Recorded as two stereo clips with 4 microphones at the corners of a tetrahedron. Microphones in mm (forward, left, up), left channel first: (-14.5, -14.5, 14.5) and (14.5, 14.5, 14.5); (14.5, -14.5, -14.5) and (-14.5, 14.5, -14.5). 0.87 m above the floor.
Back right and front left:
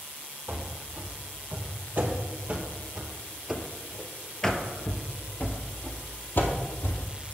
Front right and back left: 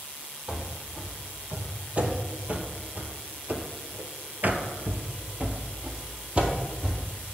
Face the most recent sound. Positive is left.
turn(degrees=-160)